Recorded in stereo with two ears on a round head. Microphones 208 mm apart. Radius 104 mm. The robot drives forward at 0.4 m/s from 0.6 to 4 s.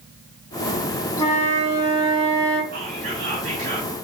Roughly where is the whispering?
Right.